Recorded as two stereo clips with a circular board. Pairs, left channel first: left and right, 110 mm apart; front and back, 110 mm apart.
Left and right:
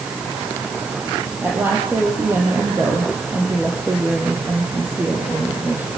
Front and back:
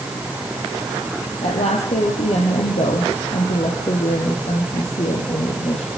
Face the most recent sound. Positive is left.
turn(degrees=-15)